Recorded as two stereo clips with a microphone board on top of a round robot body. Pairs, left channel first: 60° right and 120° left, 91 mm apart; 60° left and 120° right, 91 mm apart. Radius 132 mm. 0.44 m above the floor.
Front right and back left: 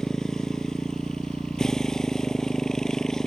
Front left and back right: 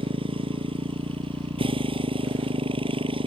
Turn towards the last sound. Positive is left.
turn(degrees=-145)